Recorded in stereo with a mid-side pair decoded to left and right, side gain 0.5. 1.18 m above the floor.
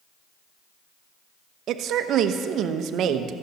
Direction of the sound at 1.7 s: 65° right.